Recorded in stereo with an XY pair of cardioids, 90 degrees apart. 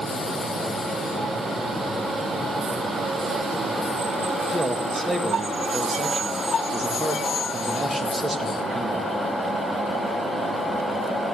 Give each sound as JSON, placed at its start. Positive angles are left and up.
{"t": 4.5, "sound": "a man speaking", "azimuth_deg": -30, "distance_m": 2.0}